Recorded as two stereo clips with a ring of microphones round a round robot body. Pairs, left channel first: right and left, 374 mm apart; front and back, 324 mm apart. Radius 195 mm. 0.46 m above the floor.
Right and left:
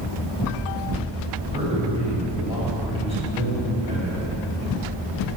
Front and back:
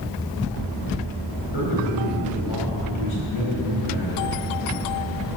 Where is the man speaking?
15° left, 4 m.